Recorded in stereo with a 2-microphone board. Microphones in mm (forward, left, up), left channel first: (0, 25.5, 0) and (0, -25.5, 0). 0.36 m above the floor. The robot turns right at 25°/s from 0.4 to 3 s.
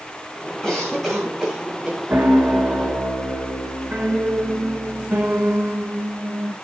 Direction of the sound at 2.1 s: 35° right (ahead or behind).